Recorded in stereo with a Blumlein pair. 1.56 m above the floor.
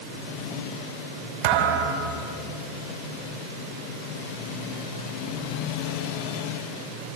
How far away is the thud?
About 3 m.